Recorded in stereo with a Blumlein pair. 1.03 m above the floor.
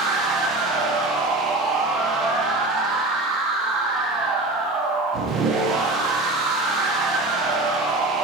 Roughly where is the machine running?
Ahead.